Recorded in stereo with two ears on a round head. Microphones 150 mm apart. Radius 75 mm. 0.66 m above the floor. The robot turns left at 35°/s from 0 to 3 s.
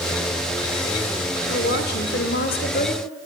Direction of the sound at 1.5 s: 105° left.